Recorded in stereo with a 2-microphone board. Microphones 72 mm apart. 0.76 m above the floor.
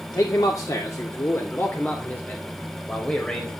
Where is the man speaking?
60° left (ahead or behind), 2.0 m; by 3.5 s 10° left (ahead or behind), 4 m.